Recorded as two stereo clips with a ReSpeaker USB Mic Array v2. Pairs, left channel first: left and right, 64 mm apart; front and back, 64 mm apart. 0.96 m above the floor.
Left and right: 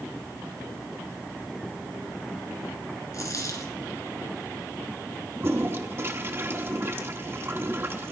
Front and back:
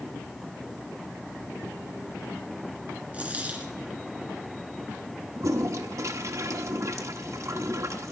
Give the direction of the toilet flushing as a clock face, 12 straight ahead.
5 o'clock.